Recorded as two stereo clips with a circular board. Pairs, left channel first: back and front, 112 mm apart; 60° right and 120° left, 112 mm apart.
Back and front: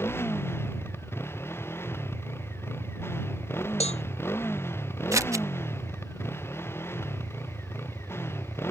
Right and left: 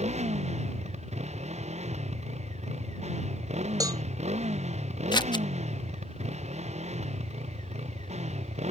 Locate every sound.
0.0 s a motorcycle: 110° left
3.8 s a cowbell: 175° left
5.1 s scissors: 50° right